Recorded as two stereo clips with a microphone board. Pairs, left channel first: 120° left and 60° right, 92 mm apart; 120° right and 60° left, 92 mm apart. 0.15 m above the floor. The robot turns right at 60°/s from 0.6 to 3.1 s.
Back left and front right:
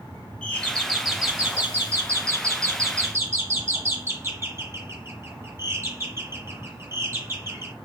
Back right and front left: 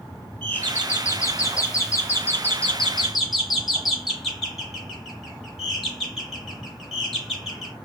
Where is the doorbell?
175° left, 2 m; by 7.8 s 35° right, 2 m.